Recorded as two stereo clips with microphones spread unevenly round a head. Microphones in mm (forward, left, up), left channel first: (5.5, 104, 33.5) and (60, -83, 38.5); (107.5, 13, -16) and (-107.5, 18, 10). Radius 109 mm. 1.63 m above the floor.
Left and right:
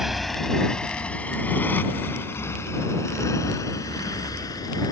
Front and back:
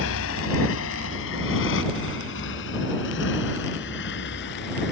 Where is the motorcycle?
15° left; by 4.9 s 35° left.